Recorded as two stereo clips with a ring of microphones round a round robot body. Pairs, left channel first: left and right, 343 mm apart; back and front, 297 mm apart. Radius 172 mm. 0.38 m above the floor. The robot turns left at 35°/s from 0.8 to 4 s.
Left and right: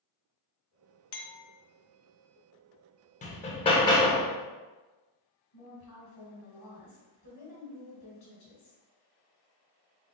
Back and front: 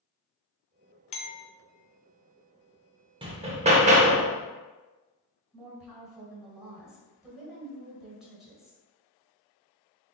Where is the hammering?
50° left, 0.7 m; by 4.3 s 25° left, 0.7 m.